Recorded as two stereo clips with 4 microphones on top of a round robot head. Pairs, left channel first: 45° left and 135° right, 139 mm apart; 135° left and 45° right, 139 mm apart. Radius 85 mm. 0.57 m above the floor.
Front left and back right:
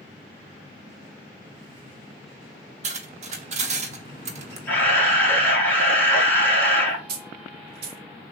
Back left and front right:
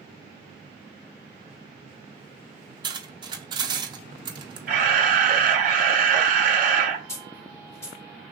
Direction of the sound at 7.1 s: 155° right.